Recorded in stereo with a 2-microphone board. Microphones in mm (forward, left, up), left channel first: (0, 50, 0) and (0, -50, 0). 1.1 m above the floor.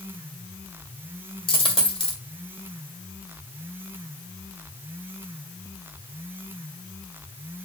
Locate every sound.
1.5 s a dropped coin: 65° left (ahead or behind), 2 m